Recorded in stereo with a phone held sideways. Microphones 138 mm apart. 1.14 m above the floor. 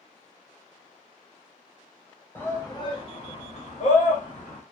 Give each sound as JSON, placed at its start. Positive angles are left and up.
{"t": 2.4, "sound": "a shout", "side_deg": 15, "distance_m": 0.9}